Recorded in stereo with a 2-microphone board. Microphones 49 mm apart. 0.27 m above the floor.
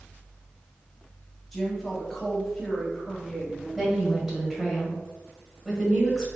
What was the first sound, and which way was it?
A woman speaking, 5° left (ahead or behind).